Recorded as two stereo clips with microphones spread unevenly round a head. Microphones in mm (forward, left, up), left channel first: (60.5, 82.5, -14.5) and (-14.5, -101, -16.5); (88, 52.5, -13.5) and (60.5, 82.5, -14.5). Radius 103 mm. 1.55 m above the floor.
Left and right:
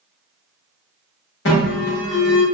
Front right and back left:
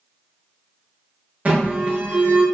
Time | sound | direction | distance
1.4 | an alarm | 95° left | 1.1 m